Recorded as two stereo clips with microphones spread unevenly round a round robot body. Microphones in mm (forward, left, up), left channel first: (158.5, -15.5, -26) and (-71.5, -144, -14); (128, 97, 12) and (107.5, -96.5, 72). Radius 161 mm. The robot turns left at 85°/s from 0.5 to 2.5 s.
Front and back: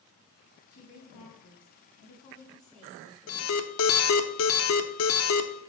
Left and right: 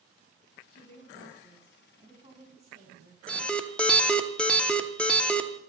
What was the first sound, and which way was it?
A woman speaking, 95° left.